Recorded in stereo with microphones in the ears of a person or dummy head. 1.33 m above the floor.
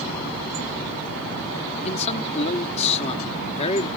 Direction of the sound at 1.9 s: 35° left (ahead or behind).